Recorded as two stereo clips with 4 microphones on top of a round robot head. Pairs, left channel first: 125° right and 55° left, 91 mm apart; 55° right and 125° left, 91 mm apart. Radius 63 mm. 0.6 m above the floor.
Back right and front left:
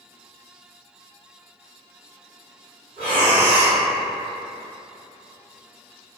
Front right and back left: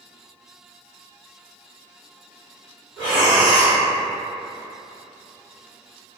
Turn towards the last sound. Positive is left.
turn(degrees=30)